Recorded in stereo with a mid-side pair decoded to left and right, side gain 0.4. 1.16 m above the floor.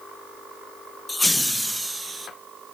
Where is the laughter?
20° left, 0.8 m; by 2.3 s 25° right, 0.9 m.